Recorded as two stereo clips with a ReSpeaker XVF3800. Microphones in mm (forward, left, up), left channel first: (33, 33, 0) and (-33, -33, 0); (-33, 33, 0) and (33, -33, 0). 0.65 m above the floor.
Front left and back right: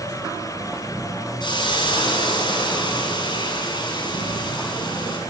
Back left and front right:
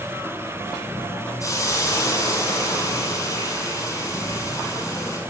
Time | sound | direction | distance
1.4 | a hiss | 80° left | 7.5 m